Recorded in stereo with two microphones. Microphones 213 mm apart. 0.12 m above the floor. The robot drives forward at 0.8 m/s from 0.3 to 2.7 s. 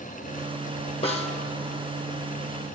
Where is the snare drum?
30° left (ahead or behind), 1.4 m.